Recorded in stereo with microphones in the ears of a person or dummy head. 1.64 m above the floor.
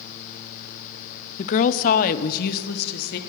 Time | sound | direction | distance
1.4 | a woman speaking | 35° left (ahead or behind) | 0.5 m